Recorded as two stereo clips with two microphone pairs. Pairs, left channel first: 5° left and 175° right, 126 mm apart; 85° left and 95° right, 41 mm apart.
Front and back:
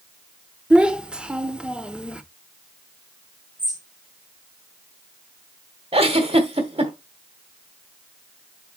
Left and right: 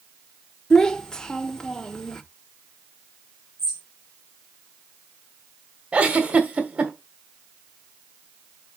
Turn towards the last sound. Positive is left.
turn(degrees=-150)